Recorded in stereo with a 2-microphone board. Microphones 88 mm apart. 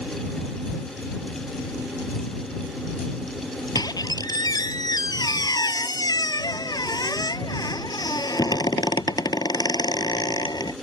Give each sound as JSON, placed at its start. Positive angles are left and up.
{"t": 3.8, "sound": "a squeak", "side_deg": 45}